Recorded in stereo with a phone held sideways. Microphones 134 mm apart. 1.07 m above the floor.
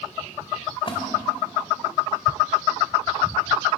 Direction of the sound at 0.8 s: 40° left (ahead or behind).